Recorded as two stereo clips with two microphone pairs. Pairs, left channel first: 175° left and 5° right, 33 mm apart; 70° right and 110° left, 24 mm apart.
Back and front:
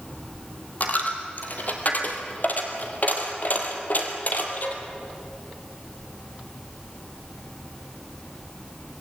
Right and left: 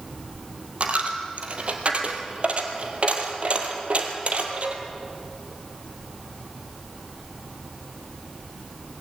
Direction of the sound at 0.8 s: 140° left.